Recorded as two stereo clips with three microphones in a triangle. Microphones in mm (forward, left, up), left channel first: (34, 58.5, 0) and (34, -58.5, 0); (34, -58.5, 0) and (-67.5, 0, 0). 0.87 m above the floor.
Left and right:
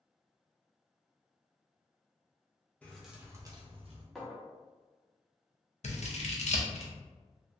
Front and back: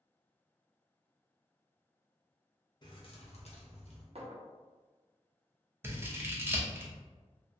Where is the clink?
Straight behind, 0.5 m.